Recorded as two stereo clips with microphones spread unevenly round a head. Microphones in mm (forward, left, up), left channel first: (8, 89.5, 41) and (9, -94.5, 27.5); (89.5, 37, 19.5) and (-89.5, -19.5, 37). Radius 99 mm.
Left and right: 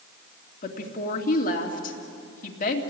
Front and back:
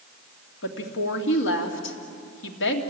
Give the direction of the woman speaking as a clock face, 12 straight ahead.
11 o'clock.